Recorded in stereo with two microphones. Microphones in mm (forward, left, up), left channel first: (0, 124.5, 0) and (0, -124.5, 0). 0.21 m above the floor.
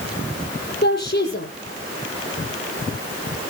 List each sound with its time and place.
0.8 s a woman speaking: 45° left (ahead or behind), 7 m